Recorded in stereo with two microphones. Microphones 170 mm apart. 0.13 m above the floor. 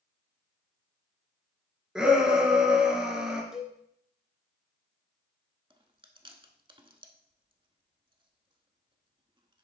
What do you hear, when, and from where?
1.9 s a shout: 5° right (ahead or behind), 2.5 m
3.5 s a cowbell: 5° right (ahead or behind), 1.6 m
5.7 s chewing: 30° right (ahead or behind), 0.8 m